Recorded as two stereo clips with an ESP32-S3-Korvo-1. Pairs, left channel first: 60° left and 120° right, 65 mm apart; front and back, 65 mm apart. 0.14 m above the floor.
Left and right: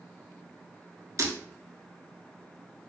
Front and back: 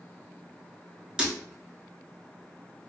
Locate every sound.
1.2 s breaking glass: 105° right, 0.6 m